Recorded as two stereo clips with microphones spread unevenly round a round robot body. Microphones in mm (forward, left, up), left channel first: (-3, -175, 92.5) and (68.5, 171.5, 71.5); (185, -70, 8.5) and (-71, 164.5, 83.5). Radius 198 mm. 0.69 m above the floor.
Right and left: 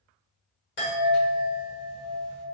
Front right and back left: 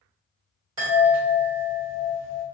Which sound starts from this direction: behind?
A chime, at 0.8 s.